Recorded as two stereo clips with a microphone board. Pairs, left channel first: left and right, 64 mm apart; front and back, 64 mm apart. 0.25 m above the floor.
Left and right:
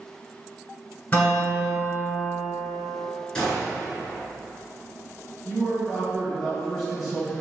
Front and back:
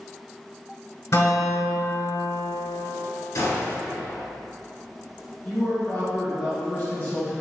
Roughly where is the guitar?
Ahead left.